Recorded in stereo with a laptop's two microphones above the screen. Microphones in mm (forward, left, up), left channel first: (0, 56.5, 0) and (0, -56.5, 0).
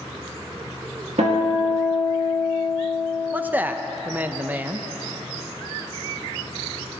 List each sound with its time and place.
1.2 s a guitar: 70° right (ahead or behind), 1.8 m
3.3 s a man speaking: 15° right (ahead or behind), 0.6 m